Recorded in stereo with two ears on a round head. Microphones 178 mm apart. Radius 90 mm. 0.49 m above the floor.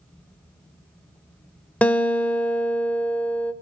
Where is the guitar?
5° left (ahead or behind), 0.9 m.